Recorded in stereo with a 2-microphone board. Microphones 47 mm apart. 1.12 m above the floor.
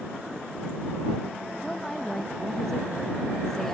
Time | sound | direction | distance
1.6 | a woman speaking | 10° left (ahead or behind) | ?